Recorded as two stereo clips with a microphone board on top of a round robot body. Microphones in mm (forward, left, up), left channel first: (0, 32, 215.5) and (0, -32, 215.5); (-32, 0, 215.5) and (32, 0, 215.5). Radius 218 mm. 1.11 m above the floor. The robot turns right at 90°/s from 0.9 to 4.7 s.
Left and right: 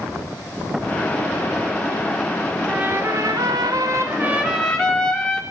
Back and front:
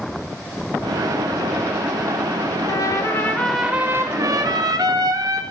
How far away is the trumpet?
About 3.5 m.